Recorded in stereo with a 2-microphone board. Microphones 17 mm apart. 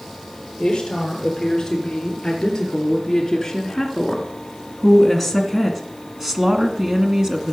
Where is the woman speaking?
30° left (ahead or behind), 3.5 m; by 7.5 s 35° right (ahead or behind), 1.9 m.